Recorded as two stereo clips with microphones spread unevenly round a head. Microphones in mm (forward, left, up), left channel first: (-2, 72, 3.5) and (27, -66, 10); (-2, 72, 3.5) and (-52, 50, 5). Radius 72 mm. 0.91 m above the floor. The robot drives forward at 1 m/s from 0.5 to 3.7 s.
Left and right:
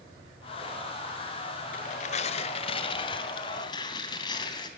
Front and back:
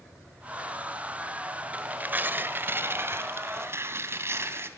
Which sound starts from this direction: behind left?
Tearing paper, at 1.7 s.